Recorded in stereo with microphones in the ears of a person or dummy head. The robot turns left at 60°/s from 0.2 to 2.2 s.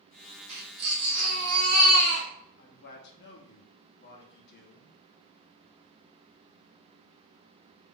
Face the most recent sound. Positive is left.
turn(degrees=65)  # may be behind; listen again after turning